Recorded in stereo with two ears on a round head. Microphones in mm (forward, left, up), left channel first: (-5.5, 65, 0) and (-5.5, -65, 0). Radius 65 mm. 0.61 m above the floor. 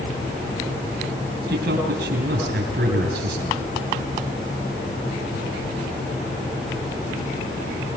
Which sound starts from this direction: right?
A man speaking, at 1.5 s.